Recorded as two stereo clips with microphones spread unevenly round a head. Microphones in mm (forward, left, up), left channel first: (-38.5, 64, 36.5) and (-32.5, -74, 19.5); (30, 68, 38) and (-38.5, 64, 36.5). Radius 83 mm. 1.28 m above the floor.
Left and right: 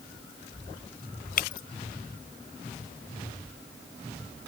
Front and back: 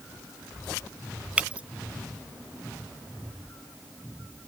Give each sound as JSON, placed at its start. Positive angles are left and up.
{"t": 1.4, "sound": "breaking glass", "azimuth_deg": 110}